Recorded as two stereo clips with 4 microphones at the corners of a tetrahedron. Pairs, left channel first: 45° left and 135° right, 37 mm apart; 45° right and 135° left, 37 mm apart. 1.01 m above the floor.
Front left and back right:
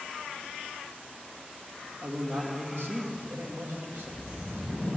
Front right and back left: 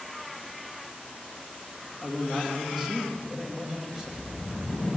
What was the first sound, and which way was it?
A man speaking, 150° right.